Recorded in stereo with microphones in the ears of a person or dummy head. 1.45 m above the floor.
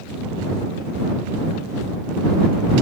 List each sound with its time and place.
Only background noise.